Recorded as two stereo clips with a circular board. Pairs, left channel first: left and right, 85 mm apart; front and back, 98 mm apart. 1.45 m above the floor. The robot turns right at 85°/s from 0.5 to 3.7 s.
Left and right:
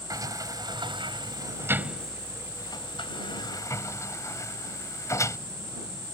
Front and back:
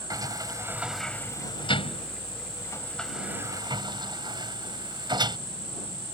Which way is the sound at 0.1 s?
130° right.